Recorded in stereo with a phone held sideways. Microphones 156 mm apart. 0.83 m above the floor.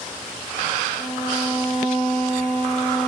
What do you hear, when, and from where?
1.0 s a violin: 30° left (ahead or behind), 2.5 m